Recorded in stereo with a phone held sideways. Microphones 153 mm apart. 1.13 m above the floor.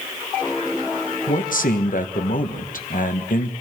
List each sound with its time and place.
1.3 s a man speaking: 65° left (ahead or behind), 1.2 m